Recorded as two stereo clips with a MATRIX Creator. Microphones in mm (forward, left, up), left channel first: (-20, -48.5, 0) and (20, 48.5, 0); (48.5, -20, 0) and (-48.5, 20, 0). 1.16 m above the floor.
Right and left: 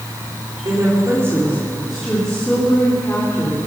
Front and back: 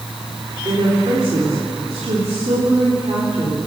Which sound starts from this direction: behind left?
A woman speaking, at 0.7 s.